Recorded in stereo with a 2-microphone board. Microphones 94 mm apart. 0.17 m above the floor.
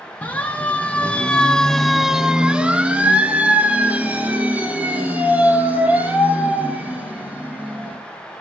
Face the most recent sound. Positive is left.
turn(degrees=-15)  # may be behind; listen again after turning